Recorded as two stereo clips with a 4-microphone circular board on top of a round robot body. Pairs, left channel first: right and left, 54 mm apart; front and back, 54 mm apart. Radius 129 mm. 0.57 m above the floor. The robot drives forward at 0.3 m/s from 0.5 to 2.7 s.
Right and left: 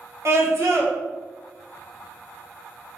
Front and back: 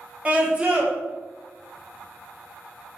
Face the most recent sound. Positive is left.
turn(degrees=140)